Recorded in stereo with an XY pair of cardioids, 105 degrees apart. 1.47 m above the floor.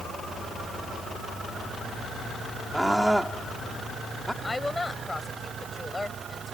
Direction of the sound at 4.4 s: 15° left.